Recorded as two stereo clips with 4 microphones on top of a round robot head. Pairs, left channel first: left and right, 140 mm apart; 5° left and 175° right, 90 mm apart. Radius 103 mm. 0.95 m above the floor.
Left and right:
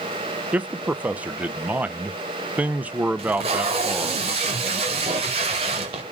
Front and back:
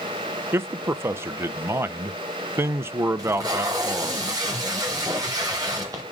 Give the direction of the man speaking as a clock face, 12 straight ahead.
5 o'clock.